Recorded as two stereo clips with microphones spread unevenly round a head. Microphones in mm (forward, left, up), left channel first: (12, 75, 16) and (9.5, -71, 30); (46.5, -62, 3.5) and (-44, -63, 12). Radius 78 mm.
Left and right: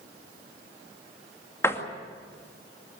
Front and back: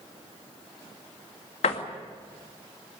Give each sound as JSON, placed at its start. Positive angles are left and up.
{"t": 1.6, "sound": "a door slam", "azimuth_deg": 15, "distance_m": 2.0}